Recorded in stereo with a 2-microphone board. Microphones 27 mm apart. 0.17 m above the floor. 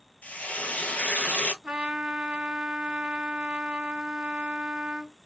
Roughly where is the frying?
Left.